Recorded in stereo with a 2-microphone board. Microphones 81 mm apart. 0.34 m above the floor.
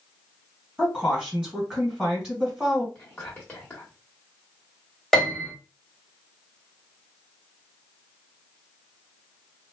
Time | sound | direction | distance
0.8 | a woman speaking | 10° right (ahead or behind) | 1.8 m
3.0 | whispering | 20° left (ahead or behind) | 1.1 m
5.1 | a piano | 5° left (ahead or behind) | 1.3 m